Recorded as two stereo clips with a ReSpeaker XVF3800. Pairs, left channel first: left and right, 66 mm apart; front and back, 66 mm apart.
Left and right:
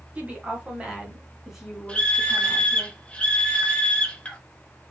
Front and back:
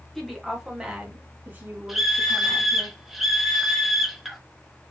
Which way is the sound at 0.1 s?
80° right.